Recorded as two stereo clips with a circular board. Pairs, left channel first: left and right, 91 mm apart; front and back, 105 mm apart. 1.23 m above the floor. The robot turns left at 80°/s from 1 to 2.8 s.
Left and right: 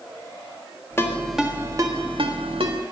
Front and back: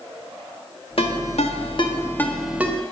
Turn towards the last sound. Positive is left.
turn(degrees=-120)